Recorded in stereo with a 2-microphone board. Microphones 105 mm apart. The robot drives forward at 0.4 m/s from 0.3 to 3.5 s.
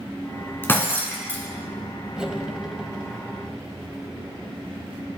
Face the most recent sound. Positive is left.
turn(degrees=-5)  # may be behind; listen again after turning